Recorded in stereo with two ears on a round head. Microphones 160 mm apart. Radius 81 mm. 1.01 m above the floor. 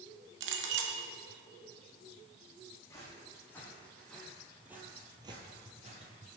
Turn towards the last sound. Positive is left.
turn(degrees=-45)  # may be behind; listen again after turning